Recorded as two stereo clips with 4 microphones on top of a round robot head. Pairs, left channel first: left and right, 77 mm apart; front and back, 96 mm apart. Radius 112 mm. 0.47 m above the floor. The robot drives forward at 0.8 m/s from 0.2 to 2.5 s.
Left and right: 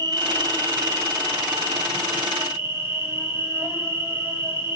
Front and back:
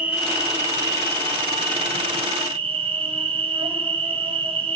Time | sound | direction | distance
0.0 | an insect | 105° right | 1.3 m